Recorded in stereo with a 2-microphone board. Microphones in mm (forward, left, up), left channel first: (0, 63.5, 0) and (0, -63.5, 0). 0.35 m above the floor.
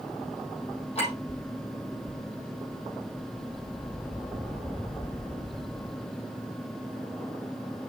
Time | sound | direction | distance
0.9 | a clink | 55° left (ahead or behind) | 8 m